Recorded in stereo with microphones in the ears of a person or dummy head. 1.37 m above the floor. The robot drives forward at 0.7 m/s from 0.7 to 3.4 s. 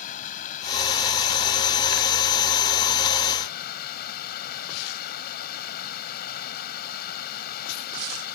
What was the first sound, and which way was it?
Running water, 50° left (ahead or behind).